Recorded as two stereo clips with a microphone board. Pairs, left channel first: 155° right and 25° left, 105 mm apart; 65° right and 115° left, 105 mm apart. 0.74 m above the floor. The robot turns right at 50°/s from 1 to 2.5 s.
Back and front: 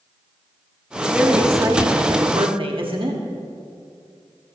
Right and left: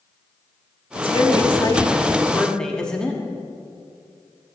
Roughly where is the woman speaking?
Ahead right.